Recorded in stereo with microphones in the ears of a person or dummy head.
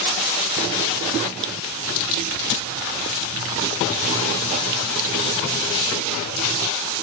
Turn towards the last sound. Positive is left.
No sound to turn to.